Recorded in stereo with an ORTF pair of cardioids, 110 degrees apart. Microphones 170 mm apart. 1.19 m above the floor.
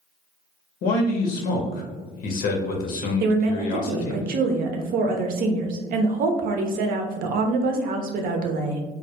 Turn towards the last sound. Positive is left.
turn(degrees=-65)